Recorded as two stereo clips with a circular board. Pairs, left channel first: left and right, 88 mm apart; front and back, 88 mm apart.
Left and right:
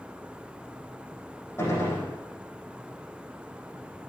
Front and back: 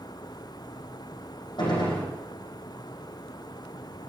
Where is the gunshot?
30° left, 6.5 m.